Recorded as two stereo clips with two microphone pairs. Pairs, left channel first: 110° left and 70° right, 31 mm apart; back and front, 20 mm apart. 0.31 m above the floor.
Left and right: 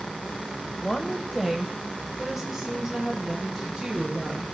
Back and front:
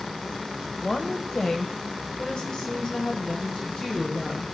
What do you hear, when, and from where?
0.8 s a woman speaking: 155° left, 0.9 m; by 4.4 s 140° right, 2.5 m